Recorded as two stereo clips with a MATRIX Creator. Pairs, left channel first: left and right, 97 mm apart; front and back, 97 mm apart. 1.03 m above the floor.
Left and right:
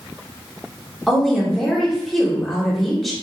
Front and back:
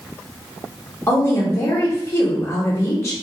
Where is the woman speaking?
5° left, 0.8 m.